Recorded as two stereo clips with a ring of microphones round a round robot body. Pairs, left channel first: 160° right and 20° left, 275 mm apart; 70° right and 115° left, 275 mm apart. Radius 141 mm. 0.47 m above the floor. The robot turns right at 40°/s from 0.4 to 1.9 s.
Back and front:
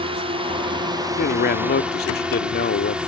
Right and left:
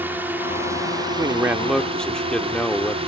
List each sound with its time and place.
0.0 s a drone: 40° left; by 3.1 s 100° left
1.2 s a man speaking: straight behind; by 3.0 s 155° right